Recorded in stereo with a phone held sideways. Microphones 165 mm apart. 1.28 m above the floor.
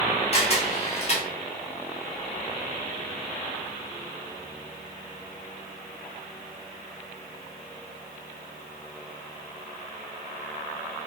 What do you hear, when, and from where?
0.3 s a camera shutter: 40° left (ahead or behind), 0.8 m